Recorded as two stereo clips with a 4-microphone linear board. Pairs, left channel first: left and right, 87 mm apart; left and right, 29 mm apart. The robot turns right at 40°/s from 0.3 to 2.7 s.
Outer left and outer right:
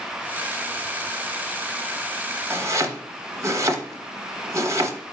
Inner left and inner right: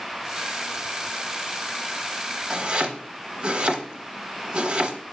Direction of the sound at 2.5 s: 30° right (ahead or behind).